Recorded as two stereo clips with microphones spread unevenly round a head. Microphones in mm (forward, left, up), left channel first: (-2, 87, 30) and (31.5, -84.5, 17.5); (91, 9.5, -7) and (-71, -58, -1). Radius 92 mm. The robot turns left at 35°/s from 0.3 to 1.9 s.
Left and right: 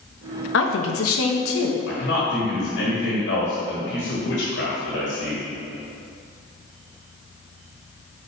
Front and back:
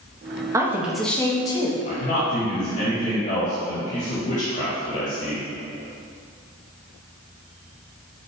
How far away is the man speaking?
About 1.9 m.